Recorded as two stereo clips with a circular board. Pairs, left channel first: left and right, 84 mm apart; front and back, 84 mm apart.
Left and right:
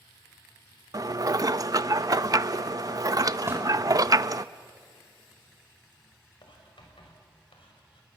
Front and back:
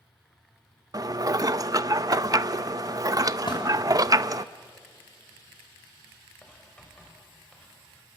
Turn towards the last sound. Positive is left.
turn(degrees=80)